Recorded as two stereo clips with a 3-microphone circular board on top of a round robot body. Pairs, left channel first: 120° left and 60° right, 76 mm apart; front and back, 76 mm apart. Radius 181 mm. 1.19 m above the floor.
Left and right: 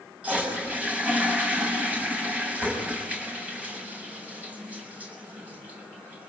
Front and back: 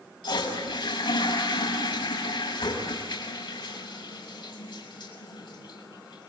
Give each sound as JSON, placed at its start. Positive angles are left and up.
{"t": 0.2, "sound": "a toilet flushing", "azimuth_deg": 15, "distance_m": 6.5}